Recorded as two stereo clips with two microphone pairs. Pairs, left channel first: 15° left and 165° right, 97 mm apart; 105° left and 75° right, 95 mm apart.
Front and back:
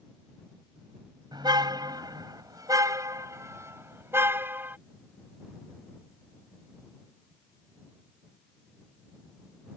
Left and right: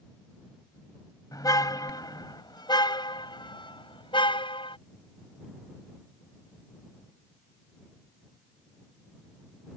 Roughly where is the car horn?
Behind left.